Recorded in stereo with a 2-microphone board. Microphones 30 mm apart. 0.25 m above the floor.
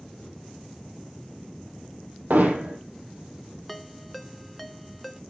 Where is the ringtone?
5° left (ahead or behind), 1.2 m.